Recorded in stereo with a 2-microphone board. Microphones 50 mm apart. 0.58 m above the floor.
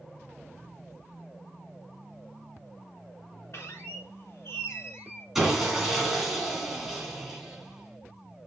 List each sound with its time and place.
3.5 s a squeak: 55° left (ahead or behind), 2.5 m
5.3 s sawing: 10° right (ahead or behind), 2.5 m